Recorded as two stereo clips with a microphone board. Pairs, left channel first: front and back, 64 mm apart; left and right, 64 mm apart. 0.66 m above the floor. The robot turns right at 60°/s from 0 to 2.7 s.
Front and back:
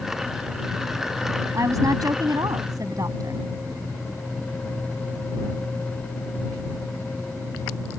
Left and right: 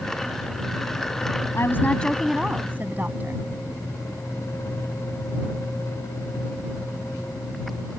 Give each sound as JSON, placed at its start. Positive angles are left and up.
{"t": 1.5, "sound": "a woman speaking", "azimuth_deg": 135}